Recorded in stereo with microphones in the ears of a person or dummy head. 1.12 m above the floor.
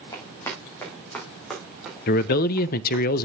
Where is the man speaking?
55° left (ahead or behind), 0.6 m.